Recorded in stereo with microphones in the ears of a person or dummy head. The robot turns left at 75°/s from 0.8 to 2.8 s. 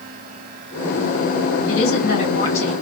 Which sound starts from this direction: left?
A woman speaking, at 1.7 s.